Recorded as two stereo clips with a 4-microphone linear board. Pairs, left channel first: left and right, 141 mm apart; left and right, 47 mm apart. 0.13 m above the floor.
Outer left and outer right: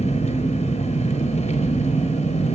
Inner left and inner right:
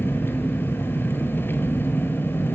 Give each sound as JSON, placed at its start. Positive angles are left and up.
{"t": 0.0, "sound": "an engine running", "side_deg": 50, "distance_m": 1.0}